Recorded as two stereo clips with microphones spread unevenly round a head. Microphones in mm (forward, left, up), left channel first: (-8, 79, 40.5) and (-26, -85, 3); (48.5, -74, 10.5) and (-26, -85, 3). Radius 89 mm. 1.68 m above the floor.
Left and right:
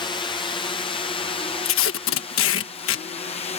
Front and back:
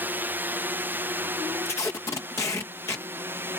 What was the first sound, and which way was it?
A drone, 145° left.